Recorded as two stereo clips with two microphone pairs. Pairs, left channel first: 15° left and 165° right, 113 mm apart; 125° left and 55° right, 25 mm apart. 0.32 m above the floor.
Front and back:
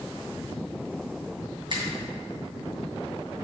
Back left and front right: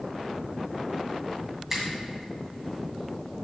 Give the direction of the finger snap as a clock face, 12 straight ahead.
4 o'clock.